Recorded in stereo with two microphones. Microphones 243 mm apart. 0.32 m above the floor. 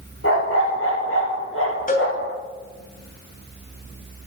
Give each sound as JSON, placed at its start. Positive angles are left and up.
{"t": 0.2, "sound": "a dog barking", "side_deg": 65, "distance_m": 4.0}
{"t": 1.9, "sound": "a cowbell", "side_deg": 35, "distance_m": 2.5}